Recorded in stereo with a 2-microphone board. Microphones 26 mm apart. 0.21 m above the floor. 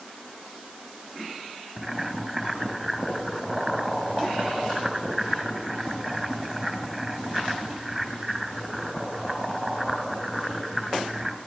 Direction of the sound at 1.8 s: Centre (ahead or behind).